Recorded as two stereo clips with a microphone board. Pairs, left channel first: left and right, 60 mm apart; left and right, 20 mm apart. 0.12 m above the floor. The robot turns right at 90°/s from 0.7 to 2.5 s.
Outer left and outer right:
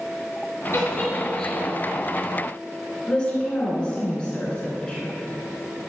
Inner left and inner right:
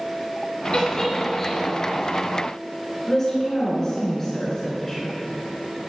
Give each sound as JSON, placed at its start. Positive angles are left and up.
{"t": 0.7, "sound": "a giggle", "side_deg": 50, "distance_m": 2.0}
{"t": 3.1, "sound": "a woman speaking", "side_deg": 20, "distance_m": 1.6}